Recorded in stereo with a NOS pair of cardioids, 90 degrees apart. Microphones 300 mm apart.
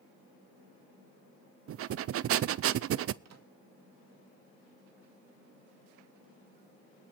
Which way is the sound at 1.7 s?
50° right.